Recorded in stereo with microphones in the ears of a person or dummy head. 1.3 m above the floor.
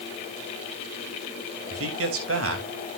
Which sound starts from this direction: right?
A man speaking, at 1.7 s.